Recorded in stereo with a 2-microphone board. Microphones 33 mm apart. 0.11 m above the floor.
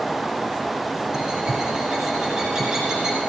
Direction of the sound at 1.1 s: 20° right (ahead or behind).